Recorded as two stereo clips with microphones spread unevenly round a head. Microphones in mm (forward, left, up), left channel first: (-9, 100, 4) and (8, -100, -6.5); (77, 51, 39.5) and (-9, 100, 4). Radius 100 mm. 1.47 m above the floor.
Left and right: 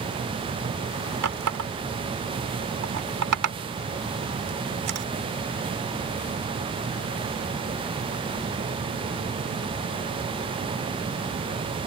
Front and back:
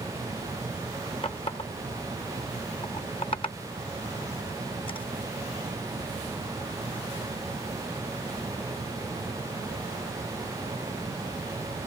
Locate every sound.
1.2 s a running tap: 90° right